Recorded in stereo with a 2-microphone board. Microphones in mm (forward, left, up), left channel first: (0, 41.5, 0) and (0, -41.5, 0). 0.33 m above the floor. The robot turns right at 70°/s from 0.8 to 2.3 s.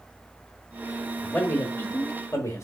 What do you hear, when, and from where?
1.2 s a man speaking: 15° left (ahead or behind), 1.0 m; by 2.6 s 35° left (ahead or behind), 1.0 m